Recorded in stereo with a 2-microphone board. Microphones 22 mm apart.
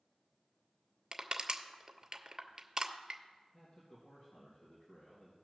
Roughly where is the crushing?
Right.